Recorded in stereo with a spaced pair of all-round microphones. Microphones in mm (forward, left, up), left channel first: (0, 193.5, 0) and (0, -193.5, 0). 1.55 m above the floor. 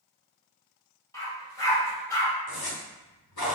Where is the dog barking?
10° left (ahead or behind), 1.2 m.